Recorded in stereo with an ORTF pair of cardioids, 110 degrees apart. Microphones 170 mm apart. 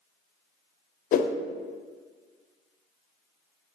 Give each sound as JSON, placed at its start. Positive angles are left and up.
{"t": 1.1, "sound": "a whoosh", "azimuth_deg": 55, "distance_m": 0.5}